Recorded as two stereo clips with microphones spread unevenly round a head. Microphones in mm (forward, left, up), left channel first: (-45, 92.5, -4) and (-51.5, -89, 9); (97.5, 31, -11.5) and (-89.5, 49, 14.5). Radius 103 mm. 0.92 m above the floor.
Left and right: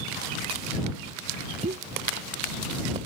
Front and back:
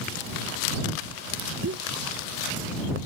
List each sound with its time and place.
1.6 s a pop: 145° right